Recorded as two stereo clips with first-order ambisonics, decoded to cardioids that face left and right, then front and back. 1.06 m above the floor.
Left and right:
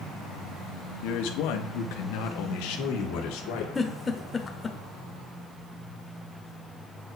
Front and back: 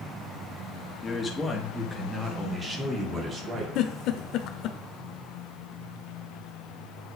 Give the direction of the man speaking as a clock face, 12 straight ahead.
10 o'clock.